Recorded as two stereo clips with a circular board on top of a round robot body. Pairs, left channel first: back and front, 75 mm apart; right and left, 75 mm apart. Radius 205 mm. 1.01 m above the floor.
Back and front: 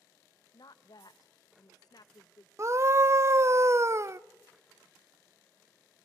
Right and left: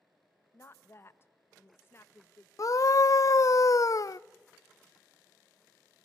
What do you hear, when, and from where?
0.5 s a woman speaking: 145° right, 1.0 m
2.6 s a scream: 50° right, 0.5 m